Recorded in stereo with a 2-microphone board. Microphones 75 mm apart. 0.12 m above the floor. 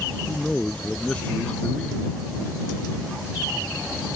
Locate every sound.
0.3 s a man speaking: 15° left (ahead or behind)